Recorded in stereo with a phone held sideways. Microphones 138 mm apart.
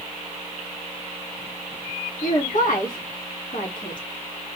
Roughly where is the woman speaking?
Left.